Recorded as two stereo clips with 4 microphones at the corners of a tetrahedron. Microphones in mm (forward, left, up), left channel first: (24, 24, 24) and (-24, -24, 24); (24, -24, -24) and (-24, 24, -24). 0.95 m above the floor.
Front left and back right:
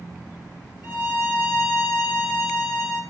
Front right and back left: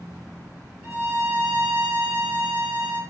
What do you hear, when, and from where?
0.8 s a violin: 85° left, 2.5 m